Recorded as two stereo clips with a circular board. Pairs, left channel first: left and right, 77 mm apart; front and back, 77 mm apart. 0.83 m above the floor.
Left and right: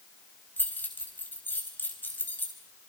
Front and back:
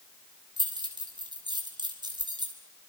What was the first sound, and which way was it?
Keys jangling, 155° left.